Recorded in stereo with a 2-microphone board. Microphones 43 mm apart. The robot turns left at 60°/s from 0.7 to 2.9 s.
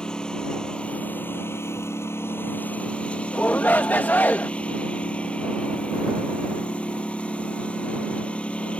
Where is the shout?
40° left (ahead or behind).